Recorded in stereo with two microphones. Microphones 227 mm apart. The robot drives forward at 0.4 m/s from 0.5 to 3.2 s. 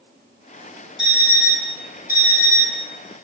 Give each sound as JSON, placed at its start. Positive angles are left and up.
{"t": 1.0, "sound": "an alarm clock", "side_deg": 50, "distance_m": 0.8}